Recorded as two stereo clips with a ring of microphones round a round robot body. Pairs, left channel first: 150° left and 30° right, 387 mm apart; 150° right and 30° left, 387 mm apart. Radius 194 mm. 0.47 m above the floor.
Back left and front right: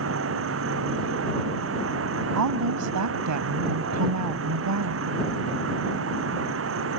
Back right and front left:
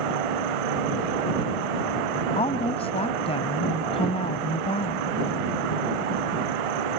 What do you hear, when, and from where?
0.0 s an insect: 30° left
2.3 s a woman speaking: 75° right